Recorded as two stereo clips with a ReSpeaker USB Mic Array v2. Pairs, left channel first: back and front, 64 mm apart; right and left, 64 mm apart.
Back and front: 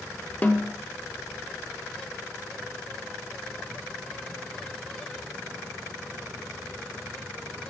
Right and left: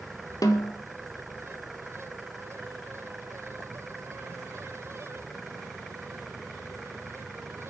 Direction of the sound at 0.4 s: 115° right.